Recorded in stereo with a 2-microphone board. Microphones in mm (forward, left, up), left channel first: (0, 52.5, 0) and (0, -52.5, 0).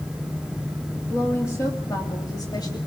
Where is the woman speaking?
25° left (ahead or behind), 2.5 m; by 2.8 s 45° left (ahead or behind), 2.5 m.